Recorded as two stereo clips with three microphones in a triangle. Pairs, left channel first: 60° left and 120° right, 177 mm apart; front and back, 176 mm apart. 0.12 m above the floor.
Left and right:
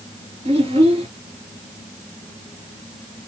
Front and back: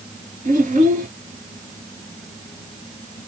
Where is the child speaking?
165° right, 1.9 m.